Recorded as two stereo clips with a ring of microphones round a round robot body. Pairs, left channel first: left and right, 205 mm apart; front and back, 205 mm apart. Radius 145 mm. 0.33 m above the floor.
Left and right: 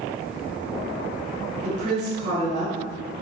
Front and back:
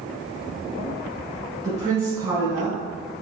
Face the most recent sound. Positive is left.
turn(degrees=-115)